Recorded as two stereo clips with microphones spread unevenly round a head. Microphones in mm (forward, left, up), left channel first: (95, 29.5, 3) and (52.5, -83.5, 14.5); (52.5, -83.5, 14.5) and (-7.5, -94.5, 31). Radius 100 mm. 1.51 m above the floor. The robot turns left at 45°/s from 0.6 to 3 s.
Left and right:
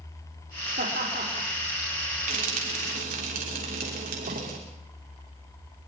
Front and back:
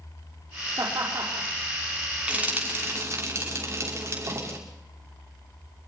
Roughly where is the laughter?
Behind right.